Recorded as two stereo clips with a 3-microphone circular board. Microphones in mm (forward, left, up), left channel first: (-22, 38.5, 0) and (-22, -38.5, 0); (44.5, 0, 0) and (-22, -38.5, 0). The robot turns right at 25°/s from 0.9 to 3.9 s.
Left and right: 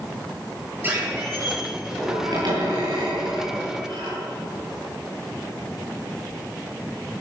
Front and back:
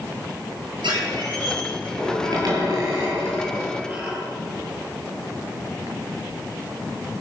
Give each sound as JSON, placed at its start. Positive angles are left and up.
{"t": 0.8, "sound": "a squeak", "azimuth_deg": -155, "distance_m": 9.5}